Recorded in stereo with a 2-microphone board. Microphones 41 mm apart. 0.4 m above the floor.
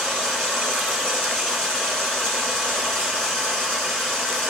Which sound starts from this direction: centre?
Running water, at 0.0 s.